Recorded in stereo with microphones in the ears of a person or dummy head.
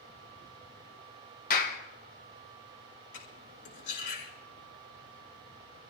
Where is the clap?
45° left (ahead or behind), 1.5 m.